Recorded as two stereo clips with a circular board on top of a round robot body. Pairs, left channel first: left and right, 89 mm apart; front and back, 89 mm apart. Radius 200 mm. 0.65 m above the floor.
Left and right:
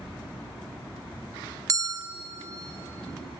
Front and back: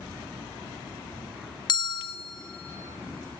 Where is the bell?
40° right, 1.1 m.